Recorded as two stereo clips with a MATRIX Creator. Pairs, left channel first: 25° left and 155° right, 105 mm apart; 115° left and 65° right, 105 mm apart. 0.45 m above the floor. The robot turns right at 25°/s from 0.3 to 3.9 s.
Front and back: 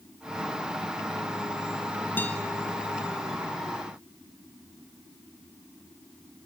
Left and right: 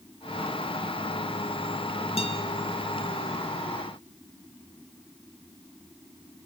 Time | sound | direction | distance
2.2 | a guitar | 95° left | 2 m